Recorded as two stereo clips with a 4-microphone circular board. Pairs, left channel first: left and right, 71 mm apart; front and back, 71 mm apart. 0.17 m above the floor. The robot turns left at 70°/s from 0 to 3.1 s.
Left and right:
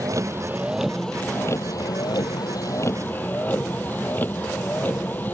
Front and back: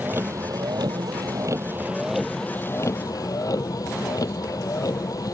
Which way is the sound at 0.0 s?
115° right.